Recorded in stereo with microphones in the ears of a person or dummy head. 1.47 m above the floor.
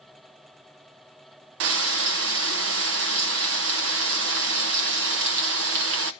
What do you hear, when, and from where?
1.6 s frying: 65° right (ahead or behind), 0.8 m